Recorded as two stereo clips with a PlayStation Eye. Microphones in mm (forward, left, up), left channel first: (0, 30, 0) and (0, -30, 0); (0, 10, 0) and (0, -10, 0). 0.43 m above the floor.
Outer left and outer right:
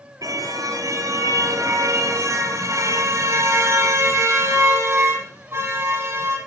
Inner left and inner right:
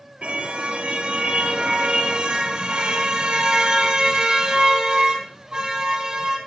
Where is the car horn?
70° right (ahead or behind), 3.5 m; by 6.4 s 40° right (ahead or behind), 6.5 m.